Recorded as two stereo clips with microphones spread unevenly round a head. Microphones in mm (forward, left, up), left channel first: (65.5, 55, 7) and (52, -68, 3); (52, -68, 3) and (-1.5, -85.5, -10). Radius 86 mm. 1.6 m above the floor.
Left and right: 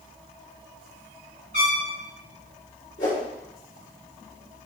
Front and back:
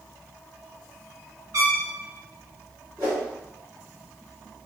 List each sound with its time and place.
1.5 s a trumpet: 150° right, 1.6 m
3.0 s a whoosh: 120° left, 1.9 m